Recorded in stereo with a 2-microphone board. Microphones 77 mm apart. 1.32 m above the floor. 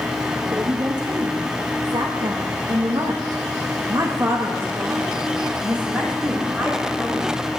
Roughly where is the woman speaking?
Right.